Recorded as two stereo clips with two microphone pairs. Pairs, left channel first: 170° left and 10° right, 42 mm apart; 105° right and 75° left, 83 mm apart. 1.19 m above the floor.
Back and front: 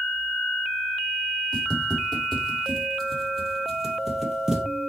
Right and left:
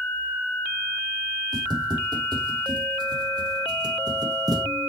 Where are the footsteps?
100° left, 3 m; by 4.7 s 65° left, 1.9 m.